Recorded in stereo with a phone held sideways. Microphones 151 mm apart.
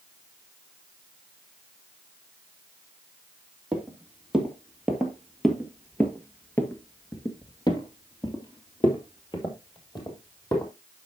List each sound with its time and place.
3.7 s footsteps: 5° right (ahead or behind), 3 m; by 10.7 s 25° left (ahead or behind), 3 m